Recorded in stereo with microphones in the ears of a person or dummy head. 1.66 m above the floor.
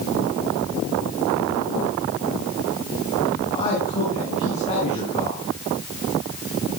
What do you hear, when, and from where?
3.4 s a man speaking: 30° left (ahead or behind), 8.5 m